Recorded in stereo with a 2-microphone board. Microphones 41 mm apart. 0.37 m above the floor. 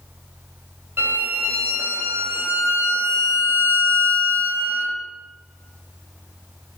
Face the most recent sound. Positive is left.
turn(degrees=-50)  # may be behind; listen again after turning